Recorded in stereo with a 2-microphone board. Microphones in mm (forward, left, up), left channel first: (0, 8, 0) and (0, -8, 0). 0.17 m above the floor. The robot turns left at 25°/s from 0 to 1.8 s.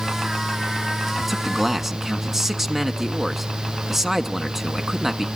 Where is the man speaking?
5° right (ahead or behind), 1.3 m; by 5.3 s 20° right (ahead or behind), 1.3 m.